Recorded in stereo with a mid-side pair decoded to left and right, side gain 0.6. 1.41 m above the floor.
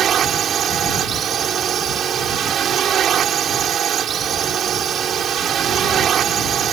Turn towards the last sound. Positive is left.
turn(degrees=-45)